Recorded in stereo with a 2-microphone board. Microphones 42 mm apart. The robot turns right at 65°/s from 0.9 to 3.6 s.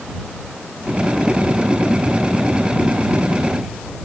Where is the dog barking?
No dog barking in this recording.